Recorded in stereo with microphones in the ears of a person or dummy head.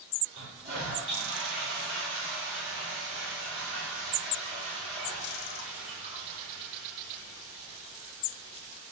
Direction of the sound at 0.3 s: 40° right (ahead or behind).